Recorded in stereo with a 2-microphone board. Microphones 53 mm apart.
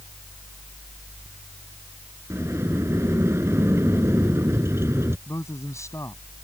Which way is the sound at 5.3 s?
85° left.